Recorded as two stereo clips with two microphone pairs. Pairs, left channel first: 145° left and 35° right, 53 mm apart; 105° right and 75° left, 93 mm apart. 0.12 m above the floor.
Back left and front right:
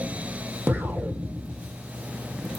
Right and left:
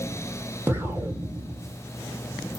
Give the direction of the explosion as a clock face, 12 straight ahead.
12 o'clock.